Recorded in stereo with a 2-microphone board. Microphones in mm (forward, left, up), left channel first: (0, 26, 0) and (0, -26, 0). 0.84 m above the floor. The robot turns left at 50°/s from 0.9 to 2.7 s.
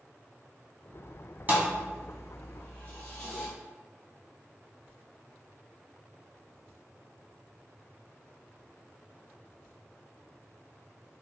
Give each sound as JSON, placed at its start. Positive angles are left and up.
{"t": 1.5, "sound": "a thud", "side_deg": -35, "distance_m": 1.4}